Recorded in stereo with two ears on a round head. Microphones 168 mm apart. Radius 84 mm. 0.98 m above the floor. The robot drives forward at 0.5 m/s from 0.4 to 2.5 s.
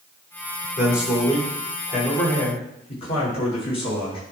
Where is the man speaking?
45° left (ahead or behind), 3 m; by 4.2 s 35° left (ahead or behind), 3.5 m.